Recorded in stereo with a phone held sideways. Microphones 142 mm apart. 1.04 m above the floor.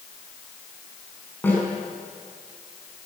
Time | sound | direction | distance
1.4 | a snare drum | 15° left (ahead or behind) | 7 m